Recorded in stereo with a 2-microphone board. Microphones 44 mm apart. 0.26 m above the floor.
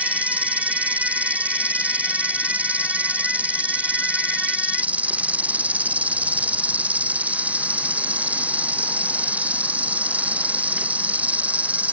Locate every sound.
0.0 s an insect: 35° right (ahead or behind)